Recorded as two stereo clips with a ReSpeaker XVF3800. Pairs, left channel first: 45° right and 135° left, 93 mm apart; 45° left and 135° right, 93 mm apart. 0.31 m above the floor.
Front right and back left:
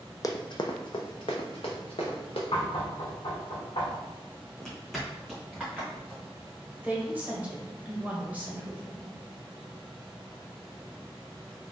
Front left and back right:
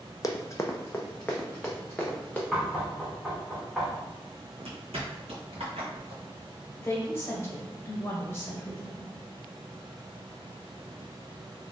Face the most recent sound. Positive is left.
turn(degrees=75)